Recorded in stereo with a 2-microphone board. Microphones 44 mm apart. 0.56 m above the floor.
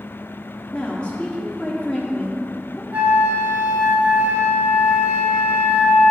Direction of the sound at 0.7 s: 30° left (ahead or behind).